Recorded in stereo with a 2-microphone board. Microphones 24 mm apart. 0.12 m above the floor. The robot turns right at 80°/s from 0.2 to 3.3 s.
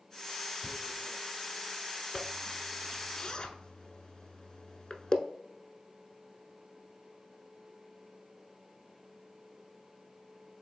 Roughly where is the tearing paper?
Centre.